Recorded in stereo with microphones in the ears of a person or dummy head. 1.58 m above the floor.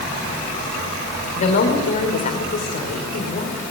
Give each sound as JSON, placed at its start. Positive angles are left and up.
{"t": 1.3, "sound": "a woman speaking", "side_deg": 35, "distance_m": 5.0}